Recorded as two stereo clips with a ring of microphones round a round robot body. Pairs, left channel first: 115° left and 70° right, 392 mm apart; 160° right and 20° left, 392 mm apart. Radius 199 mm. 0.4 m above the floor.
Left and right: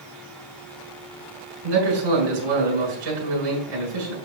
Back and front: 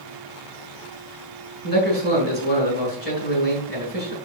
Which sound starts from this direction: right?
A man speaking, at 1.6 s.